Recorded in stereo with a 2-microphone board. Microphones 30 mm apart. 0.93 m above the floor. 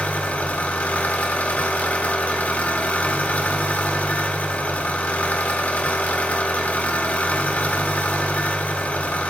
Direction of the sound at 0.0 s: 65° left (ahead or behind).